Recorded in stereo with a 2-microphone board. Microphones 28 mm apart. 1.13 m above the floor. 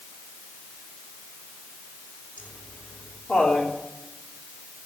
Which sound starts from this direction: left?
Laughter, at 2.4 s.